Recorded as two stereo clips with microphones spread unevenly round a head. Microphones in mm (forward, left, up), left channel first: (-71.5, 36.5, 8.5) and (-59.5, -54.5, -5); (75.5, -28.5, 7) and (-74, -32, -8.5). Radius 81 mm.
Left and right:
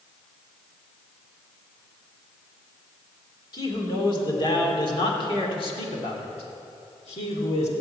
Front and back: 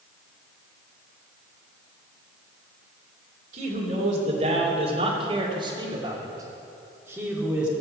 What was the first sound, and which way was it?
A man speaking, 140° left.